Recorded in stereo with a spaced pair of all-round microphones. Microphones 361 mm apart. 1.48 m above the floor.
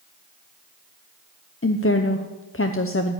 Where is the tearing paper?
No tearing paper in this recording.